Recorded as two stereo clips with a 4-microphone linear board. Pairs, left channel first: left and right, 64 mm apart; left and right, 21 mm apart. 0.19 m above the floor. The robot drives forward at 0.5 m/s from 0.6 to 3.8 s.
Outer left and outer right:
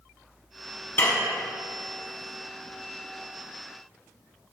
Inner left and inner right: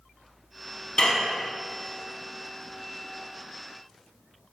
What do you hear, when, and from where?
1.0 s dishes clattering: 40° left (ahead or behind), 0.8 m